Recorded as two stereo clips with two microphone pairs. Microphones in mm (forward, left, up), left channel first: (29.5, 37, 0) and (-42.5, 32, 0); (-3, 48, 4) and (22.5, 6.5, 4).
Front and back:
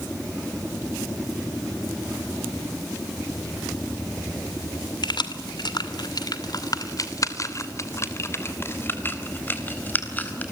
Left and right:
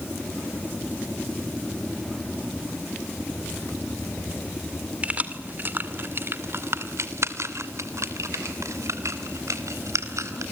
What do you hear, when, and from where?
5.0 s keys jangling: 5° left, 2 m; by 10.4 s 65° right, 4 m